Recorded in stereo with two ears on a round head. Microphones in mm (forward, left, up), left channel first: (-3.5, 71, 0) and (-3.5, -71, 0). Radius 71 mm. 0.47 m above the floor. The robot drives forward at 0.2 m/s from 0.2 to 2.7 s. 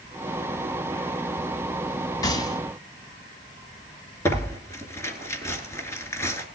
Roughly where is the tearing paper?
Centre.